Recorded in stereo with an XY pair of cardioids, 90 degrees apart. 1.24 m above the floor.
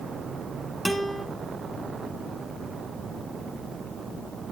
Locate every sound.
0.8 s a guitar: 5° left, 2.5 m